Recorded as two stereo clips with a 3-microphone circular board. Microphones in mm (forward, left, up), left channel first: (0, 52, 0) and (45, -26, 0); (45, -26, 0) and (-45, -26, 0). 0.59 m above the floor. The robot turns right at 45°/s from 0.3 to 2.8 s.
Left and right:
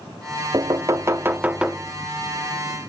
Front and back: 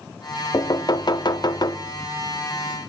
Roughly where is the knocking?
Ahead right.